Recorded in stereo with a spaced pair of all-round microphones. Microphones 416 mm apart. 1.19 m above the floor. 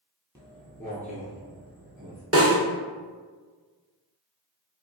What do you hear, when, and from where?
0.3 s footsteps: 10° right (ahead or behind), 1.5 m; by 2.2 s 25° right (ahead or behind), 2 m
2.3 s a snare drum: 35° right (ahead or behind), 0.9 m